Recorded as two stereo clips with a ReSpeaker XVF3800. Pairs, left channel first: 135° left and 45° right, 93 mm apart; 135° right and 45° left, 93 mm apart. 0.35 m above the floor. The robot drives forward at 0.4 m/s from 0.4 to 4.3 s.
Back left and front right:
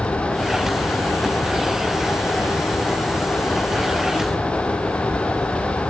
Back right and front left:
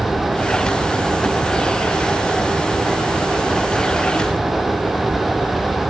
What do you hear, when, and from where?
Only background noise.